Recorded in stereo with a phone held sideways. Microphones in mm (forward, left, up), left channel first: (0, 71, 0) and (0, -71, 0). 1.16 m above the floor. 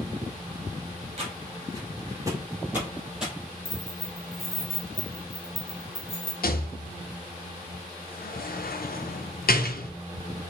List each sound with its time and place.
1.2 s footsteps: 40° right (ahead or behind), 1.9 m; by 3.3 s 5° right (ahead or behind), 2 m
3.6 s keys jangling: 40° left (ahead or behind), 1.4 m
6.4 s a rattle: 80° left, 0.5 m